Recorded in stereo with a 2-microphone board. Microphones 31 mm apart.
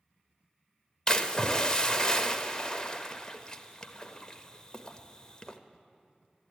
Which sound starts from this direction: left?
A splash, at 1.1 s.